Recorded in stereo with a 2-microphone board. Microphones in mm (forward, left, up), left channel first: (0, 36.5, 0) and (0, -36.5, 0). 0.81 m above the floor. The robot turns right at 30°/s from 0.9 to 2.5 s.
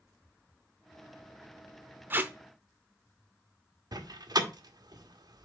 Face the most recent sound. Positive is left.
turn(degrees=-75)  # may be behind; listen again after turning